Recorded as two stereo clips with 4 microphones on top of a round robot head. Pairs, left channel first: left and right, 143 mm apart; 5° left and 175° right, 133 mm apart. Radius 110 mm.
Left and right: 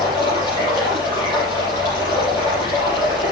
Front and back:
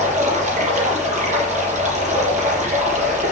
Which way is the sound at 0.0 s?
160° left.